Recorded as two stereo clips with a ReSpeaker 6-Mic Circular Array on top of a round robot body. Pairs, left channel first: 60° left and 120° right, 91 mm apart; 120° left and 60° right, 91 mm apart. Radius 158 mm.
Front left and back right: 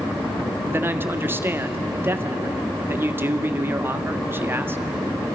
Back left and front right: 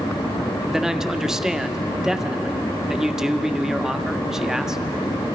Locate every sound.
0.7 s a man speaking: 135° right, 1.6 m